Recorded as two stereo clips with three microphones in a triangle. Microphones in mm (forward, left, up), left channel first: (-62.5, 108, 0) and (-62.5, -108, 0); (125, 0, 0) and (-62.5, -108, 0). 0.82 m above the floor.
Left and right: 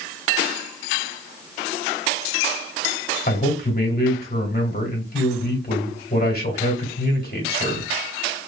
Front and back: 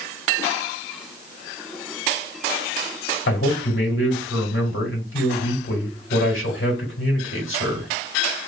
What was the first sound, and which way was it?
A man speaking, 50° left.